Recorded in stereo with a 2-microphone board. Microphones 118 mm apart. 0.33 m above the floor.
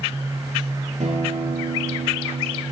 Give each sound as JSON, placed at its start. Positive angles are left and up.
{"t": 1.0, "sound": "a guitar", "side_deg": -75, "distance_m": 5.5}